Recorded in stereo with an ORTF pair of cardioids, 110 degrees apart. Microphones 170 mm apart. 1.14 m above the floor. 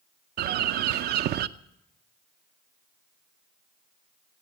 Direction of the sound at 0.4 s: 65° right.